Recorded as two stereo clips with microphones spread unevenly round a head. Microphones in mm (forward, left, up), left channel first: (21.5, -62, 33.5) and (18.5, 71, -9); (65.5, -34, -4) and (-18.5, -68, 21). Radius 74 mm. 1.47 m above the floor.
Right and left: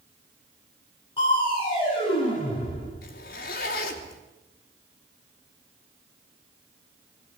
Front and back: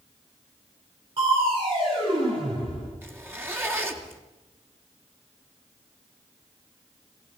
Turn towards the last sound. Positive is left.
turn(degrees=-95)